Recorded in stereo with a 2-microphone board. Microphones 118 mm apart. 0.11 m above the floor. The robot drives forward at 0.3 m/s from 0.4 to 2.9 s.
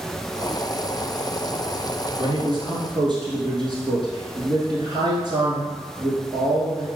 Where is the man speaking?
45° right (ahead or behind), 1.5 m; by 6.9 s 40° right (ahead or behind), 1.5 m.